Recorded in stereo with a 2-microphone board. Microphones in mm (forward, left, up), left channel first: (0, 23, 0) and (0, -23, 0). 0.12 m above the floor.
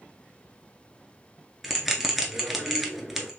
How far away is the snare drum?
No snare drum in this recording.